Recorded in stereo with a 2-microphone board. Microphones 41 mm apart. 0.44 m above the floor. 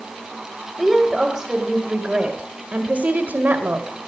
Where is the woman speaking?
10° right (ahead or behind), 2 m; by 4.0 s 55° right (ahead or behind), 2 m.